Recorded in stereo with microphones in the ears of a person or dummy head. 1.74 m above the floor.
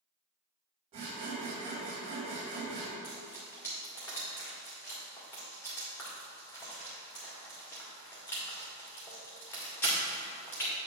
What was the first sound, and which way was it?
Sawing, 35° right (ahead or behind).